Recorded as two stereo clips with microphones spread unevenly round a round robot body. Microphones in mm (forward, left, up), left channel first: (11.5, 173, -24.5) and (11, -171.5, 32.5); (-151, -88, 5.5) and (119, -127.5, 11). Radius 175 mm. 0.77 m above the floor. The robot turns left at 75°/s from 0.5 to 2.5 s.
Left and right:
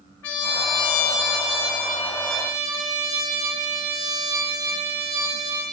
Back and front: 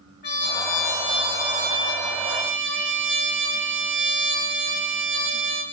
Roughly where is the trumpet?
Behind left.